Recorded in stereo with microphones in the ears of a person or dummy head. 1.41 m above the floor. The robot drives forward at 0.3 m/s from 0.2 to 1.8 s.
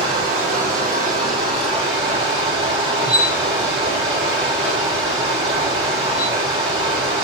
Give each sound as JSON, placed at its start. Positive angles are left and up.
{"t": 0.0, "sound": "running water", "side_deg": -45, "distance_m": 1.0}
{"t": 3.0, "sound": "a squeak", "side_deg": 20, "distance_m": 2.5}